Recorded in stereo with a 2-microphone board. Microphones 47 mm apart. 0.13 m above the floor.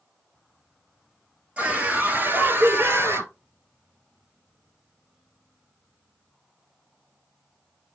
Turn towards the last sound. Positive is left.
turn(degrees=-60)  # may be behind; listen again after turning